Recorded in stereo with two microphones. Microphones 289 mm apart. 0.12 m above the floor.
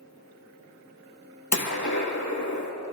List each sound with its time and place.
1.5 s a gunshot: 70° left (ahead or behind), 3 m